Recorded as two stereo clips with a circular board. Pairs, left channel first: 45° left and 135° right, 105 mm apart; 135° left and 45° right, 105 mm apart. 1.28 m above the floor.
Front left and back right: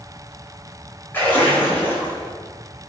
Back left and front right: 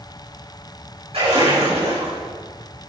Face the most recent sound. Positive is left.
turn(degrees=-30)